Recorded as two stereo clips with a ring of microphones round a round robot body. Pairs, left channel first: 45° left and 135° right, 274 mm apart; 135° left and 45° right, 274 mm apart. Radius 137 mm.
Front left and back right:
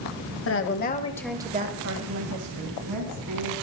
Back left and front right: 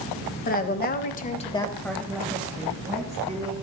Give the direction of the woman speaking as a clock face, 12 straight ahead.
9 o'clock.